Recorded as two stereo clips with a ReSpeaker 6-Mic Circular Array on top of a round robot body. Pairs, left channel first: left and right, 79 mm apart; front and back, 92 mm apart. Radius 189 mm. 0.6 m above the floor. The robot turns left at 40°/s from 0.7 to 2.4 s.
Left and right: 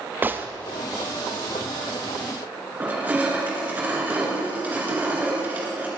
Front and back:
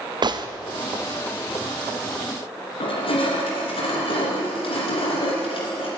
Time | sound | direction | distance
0.2 | a gunshot | 155° right | 0.9 m
2.8 | crushing | 20° right | 2.5 m